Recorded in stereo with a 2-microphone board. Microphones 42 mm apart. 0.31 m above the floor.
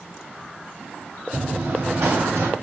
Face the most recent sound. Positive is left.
turn(degrees=-80)